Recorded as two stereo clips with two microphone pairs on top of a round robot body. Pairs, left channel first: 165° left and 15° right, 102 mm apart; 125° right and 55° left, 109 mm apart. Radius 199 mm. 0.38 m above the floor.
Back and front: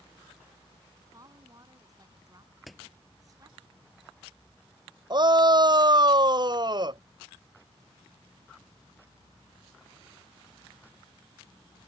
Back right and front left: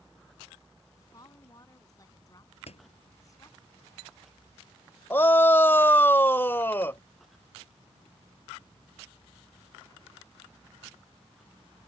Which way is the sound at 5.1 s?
60° right.